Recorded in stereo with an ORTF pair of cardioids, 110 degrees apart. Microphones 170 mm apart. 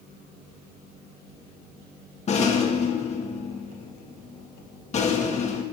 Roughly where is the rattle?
Ahead left.